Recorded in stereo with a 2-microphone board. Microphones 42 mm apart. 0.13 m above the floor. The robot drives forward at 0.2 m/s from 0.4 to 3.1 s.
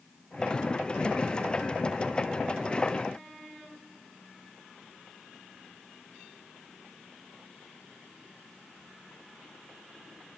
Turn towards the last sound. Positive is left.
No sound to turn to.